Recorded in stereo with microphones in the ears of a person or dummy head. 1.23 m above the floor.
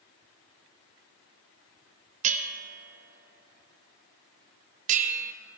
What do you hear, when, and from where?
2.2 s a bell: 40° right (ahead or behind), 0.7 m